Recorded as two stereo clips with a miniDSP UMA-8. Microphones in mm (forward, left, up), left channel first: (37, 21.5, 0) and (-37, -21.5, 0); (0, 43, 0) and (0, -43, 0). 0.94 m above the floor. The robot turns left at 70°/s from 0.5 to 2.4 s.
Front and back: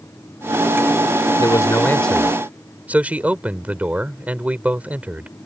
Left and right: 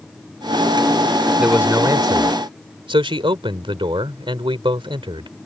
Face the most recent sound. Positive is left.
turn(degrees=-75)